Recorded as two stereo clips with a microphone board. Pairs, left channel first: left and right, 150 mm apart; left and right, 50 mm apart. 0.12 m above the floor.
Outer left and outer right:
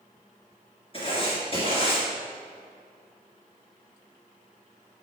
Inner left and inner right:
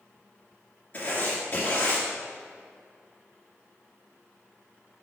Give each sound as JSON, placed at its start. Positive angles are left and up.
{"t": 0.9, "sound": "writing", "side_deg": 40, "distance_m": 1.9}